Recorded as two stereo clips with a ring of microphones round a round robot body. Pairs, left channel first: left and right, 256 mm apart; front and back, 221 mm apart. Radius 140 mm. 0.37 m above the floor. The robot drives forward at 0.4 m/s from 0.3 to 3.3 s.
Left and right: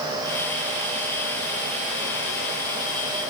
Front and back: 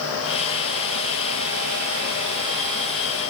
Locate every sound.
Only background noise.